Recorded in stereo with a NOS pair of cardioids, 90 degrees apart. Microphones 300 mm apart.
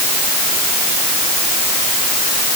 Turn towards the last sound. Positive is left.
No sound to turn to.